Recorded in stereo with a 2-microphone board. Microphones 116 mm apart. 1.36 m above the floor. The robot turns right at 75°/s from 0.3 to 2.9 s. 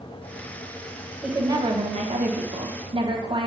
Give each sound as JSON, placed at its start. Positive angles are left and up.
{"t": 1.2, "sound": "a woman speaking", "azimuth_deg": -175, "distance_m": 1.2}